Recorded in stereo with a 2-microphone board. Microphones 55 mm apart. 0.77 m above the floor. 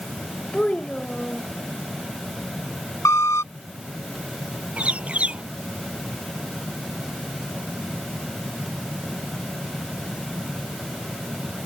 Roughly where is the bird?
Right.